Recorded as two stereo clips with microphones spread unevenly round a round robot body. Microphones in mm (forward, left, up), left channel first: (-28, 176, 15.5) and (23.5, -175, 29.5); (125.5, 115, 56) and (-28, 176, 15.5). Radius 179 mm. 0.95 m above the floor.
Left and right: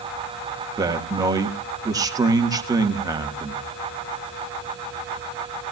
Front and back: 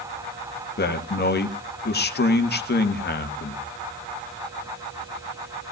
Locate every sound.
0.8 s a man speaking: straight ahead, 1.7 m